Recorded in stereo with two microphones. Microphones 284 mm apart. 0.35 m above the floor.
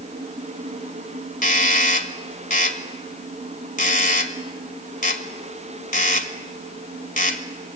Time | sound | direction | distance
1.4 | a doorbell | 25° left (ahead or behind) | 1.6 m